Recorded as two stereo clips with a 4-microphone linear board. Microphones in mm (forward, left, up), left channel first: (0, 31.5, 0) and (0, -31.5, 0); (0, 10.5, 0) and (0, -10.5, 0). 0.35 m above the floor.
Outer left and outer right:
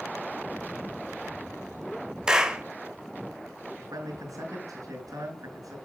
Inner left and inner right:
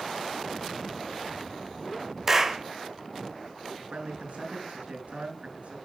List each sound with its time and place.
2.3 s a clap: 10° right (ahead or behind), 1.4 m
3.8 s a man speaking: 60° right (ahead or behind), 5 m